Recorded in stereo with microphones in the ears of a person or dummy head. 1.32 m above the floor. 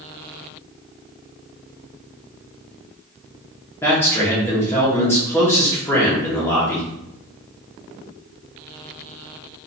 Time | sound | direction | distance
3.8 | a man speaking | 10° left (ahead or behind) | 1.3 m